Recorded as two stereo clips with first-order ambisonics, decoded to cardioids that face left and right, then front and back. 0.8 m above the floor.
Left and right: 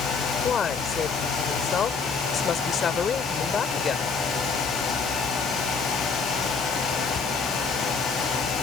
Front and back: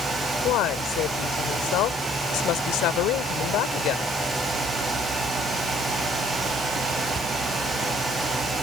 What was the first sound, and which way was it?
A woman speaking, 30° left.